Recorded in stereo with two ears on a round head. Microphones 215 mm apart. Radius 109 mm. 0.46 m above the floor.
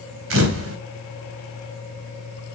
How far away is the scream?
No scream in this recording.